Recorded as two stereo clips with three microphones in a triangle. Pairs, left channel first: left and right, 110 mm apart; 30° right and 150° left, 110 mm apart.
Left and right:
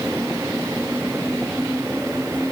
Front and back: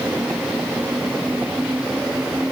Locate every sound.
Only background noise.